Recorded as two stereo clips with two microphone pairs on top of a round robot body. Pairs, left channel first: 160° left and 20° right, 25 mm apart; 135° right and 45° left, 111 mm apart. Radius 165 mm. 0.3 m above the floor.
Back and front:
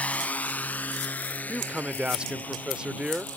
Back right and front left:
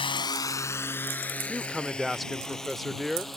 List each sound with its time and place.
0.0 s a drone: 175° right; by 3.4 s 140° left
1.5 s a man speaking: 35° right